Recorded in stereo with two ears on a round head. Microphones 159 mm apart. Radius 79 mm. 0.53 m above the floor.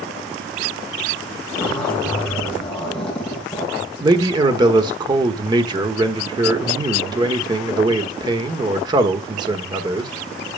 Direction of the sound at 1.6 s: 5° left (ahead or behind).